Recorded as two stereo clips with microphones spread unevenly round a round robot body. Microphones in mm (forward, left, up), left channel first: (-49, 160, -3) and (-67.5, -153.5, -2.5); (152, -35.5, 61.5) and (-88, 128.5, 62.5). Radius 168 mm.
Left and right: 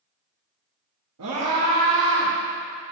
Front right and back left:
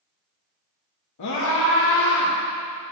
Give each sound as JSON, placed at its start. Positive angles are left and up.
{"t": 1.2, "sound": "a scream", "azimuth_deg": -50, "distance_m": 1.4}